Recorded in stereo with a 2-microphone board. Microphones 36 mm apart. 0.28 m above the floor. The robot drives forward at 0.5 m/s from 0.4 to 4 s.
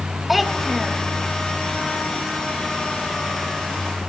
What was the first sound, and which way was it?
A child speaking, 5° right (ahead or behind).